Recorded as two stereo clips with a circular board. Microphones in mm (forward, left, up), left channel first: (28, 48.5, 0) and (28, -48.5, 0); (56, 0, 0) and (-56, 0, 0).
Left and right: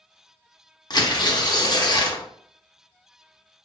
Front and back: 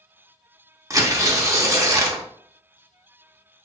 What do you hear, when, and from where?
0.9 s tearing paper: 120° left, 0.5 m